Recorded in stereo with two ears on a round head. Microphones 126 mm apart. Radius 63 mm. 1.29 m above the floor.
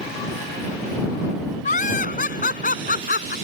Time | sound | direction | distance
1.6 | laughter | 60° left (ahead or behind) | ?